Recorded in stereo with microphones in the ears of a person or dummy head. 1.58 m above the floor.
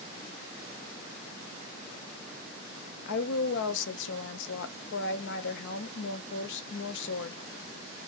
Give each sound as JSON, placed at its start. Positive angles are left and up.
{"t": 3.0, "sound": "a woman speaking", "side_deg": 65, "distance_m": 0.9}